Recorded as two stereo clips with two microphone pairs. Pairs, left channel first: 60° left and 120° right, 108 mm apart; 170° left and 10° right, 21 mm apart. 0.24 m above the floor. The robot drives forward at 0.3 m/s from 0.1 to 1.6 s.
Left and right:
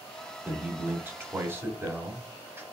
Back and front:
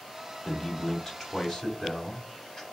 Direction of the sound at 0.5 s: 150° right.